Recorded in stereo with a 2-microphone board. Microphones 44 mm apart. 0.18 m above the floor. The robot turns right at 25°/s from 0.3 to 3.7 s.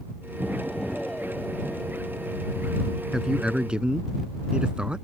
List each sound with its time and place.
0.4 s an explosion: 5° right; by 3.0 s 60° left
3.1 s a man speaking: 10° right (ahead or behind); by 5.0 s 20° right (ahead or behind)